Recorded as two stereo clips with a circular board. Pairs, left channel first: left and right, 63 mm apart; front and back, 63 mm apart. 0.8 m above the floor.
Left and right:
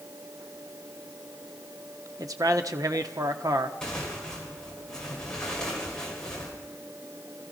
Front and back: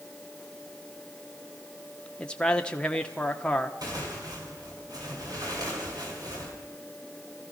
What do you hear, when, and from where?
2.2 s a man speaking: 75° right, 1.3 m
3.8 s tearing paper: 170° left, 4.5 m